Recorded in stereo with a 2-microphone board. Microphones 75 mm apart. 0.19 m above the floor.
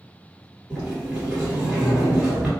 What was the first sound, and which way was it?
A sliding door, 15° right (ahead or behind).